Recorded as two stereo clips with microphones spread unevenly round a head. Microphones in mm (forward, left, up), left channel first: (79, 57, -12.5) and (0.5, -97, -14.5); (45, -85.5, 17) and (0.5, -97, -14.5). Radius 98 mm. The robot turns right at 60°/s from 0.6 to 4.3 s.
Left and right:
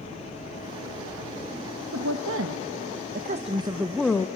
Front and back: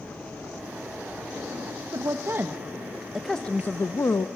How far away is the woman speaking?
About 0.8 m.